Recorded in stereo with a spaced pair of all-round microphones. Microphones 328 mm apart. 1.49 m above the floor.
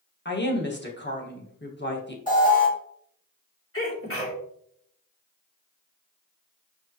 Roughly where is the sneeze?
Left.